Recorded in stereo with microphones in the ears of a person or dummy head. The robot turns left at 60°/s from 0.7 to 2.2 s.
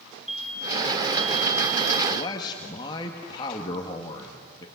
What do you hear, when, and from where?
0.3 s an explosion: straight ahead, 6 m; by 2.0 s 80° right, 6 m
2.1 s a man speaking: 30° left (ahead or behind), 1.7 m; by 4.7 s 25° left (ahead or behind), 1.7 m